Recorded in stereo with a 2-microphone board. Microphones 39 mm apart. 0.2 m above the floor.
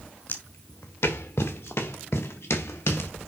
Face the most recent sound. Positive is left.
turn(degrees=75)  # may be behind; listen again after turning